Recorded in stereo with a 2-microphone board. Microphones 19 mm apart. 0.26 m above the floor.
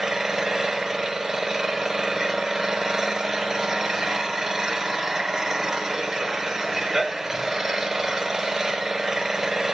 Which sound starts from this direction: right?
An engine running, at 0.0 s.